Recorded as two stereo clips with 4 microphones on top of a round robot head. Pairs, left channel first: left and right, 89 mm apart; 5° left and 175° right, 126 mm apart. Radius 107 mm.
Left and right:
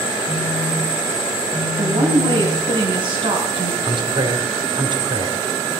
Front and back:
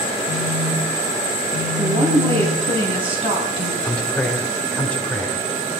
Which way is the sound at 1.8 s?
130° right.